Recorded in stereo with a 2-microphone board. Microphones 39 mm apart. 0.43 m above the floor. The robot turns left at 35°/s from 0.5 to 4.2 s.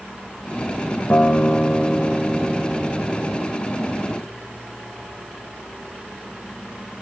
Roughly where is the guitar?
Ahead left.